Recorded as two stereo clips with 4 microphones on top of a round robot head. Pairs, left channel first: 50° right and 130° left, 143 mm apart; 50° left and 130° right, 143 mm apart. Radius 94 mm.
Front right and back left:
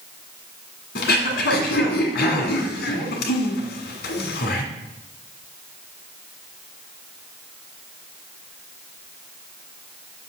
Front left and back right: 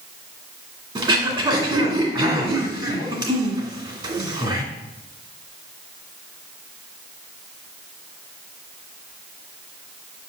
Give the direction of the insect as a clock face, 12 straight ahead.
I don't hear an insect.